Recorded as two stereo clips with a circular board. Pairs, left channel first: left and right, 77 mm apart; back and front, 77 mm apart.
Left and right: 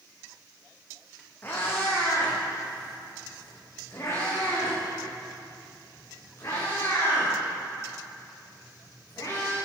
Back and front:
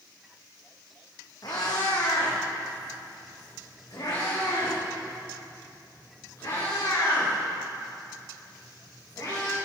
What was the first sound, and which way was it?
A cat meowing, 150° left.